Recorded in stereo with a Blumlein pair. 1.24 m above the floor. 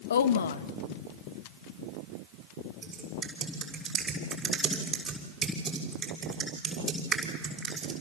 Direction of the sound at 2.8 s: 15° right.